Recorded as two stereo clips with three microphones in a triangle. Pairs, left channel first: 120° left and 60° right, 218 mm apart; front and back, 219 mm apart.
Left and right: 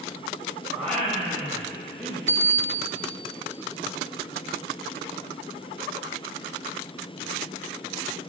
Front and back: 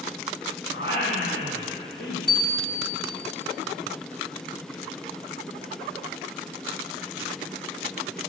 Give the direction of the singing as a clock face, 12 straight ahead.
11 o'clock.